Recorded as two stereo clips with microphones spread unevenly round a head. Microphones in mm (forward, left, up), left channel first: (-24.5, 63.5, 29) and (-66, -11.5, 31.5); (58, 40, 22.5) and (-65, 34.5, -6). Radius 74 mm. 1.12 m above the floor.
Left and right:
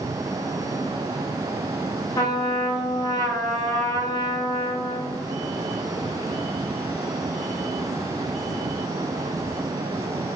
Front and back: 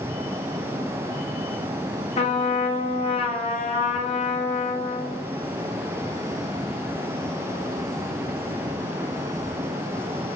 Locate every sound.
2.2 s a trumpet: 35° left, 0.5 m